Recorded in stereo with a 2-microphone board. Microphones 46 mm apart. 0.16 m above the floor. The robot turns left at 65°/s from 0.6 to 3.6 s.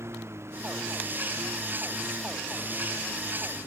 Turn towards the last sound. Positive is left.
turn(degrees=95)